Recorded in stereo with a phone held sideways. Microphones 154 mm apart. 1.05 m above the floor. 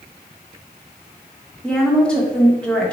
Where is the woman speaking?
5° left (ahead or behind), 1.1 m.